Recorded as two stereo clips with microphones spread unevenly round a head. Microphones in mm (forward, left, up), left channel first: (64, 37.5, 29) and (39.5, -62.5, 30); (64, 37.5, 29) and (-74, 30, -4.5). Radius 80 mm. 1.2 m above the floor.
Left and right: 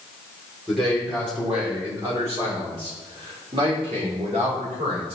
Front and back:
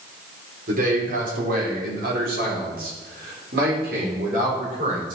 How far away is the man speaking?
About 3.5 m.